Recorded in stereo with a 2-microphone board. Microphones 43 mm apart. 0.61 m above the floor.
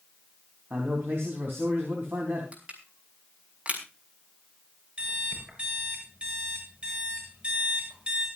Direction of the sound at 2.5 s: 30° right (ahead or behind).